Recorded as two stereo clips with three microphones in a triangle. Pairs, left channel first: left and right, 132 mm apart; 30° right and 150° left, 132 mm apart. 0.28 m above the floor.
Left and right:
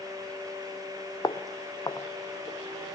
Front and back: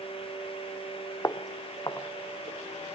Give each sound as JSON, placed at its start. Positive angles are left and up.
{"t": 1.2, "sound": "footsteps", "azimuth_deg": 30, "distance_m": 0.9}